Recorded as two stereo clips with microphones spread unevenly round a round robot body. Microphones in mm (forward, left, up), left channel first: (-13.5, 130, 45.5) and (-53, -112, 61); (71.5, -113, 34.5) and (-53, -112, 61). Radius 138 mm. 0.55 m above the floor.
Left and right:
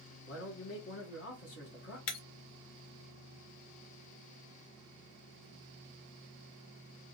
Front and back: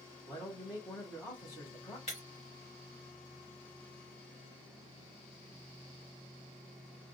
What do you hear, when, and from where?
0.3 s a man speaking: 65° left, 1.6 m
2.1 s breaking glass: 65° left, 0.7 m